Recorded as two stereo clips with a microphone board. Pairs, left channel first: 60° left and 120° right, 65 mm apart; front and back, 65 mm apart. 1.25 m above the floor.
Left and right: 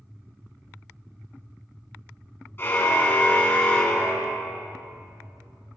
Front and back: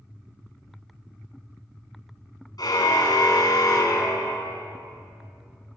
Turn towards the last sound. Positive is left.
turn(degrees=-20)